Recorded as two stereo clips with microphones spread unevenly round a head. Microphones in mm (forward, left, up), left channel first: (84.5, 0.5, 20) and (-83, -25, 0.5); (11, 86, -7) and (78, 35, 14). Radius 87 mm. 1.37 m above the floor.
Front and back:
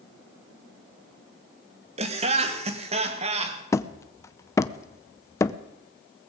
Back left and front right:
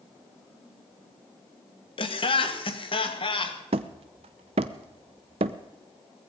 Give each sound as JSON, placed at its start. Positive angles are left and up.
{"t": 2.0, "sound": "laughter", "azimuth_deg": 130, "distance_m": 2.0}
{"t": 3.7, "sound": "hammering", "azimuth_deg": -65, "distance_m": 0.6}